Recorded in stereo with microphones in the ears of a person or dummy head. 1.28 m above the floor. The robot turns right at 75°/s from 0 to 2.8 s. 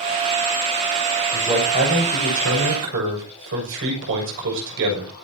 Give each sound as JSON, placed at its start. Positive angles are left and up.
{"t": 1.3, "sound": "a man speaking", "azimuth_deg": 180, "distance_m": 6.5}